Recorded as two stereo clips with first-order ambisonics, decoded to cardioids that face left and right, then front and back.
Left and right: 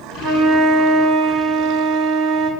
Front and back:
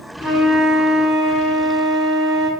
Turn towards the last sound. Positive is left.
turn(degrees=-80)